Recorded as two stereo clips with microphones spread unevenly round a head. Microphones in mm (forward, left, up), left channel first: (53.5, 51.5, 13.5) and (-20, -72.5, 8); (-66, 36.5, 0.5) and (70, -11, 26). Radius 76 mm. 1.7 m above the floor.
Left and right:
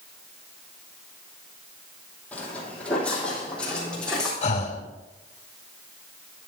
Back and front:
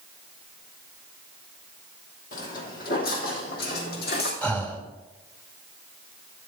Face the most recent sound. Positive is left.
turn(degrees=75)